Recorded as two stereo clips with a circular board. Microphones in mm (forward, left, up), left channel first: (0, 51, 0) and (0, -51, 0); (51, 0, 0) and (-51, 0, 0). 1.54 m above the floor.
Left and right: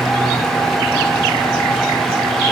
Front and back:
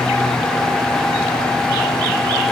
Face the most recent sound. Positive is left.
No sound to turn to.